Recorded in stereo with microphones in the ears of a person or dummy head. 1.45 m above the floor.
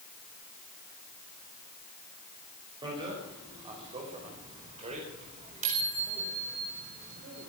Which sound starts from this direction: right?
A bicycle bell, at 2.8 s.